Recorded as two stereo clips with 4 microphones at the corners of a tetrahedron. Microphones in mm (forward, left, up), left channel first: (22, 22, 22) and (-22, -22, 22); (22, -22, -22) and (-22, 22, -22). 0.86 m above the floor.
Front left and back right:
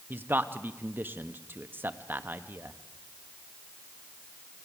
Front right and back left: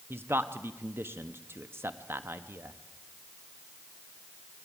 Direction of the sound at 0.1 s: 175° left.